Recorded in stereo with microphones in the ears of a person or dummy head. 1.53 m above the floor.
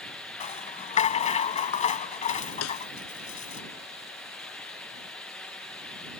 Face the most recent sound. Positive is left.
turn(degrees=80)